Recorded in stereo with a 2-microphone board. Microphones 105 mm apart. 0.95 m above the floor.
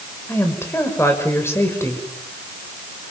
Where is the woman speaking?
20° left (ahead or behind), 5 m.